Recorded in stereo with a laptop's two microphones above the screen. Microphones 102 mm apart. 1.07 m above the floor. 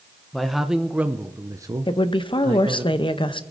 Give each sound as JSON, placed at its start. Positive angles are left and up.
{"t": 0.3, "sound": "a man speaking", "side_deg": 0, "distance_m": 0.9}
{"t": 1.9, "sound": "a woman speaking", "side_deg": 55, "distance_m": 0.8}